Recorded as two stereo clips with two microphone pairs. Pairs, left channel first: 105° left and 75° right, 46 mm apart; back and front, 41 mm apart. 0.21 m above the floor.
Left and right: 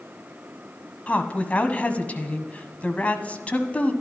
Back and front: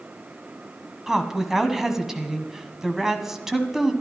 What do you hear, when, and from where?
1.1 s a woman speaking: 65° left, 1.2 m